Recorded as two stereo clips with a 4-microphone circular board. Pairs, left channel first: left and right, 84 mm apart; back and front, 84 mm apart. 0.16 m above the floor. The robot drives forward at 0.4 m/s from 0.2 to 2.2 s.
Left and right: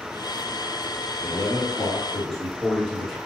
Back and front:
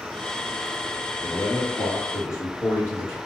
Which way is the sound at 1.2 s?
Straight behind.